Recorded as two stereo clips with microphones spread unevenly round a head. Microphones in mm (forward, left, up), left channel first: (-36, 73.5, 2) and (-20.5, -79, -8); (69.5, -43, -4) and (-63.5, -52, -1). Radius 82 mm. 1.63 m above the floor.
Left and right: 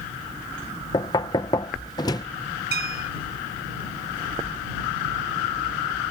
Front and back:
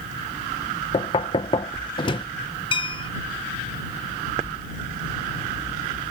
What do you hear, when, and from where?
0.9 s knocking: 45° left
2.7 s a bell: 45° right